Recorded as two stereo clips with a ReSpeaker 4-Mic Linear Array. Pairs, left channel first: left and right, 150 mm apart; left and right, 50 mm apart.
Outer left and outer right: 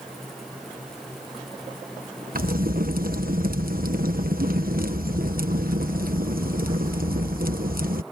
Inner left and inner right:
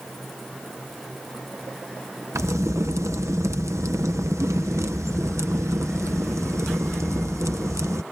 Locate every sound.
2.4 s a crack: 75° right (ahead or behind)